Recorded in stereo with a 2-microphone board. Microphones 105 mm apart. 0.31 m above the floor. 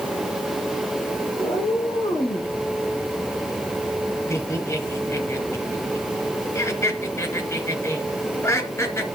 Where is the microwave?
No microwave in this recording.